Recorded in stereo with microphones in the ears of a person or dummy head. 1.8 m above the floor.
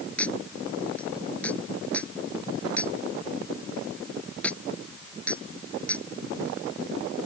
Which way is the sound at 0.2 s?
5° left (ahead or behind).